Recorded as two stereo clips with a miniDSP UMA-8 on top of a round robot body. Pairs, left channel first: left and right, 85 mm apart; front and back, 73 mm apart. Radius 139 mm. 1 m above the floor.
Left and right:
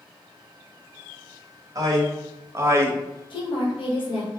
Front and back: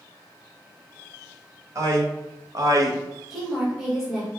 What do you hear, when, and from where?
1.8 s a man speaking: 135° right, 1.6 m; by 3.0 s 150° right, 0.9 m
3.3 s a woman speaking: 95° left, 1.4 m